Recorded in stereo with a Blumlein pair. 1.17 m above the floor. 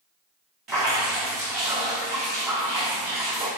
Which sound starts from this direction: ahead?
Dripping, at 0.7 s.